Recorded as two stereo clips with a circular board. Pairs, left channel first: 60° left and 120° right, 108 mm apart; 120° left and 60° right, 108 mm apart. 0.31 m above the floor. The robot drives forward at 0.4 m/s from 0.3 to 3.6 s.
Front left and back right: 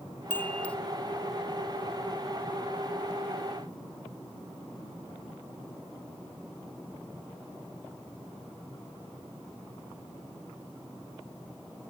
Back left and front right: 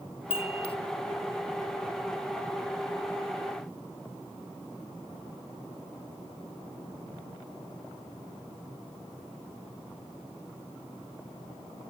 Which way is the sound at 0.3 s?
130° left.